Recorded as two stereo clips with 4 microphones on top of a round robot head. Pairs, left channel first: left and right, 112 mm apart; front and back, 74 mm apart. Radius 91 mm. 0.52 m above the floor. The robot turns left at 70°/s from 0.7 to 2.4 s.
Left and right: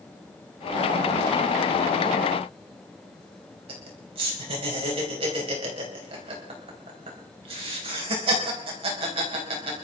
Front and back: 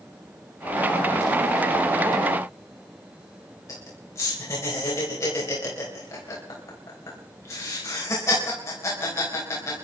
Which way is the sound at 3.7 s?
50° right.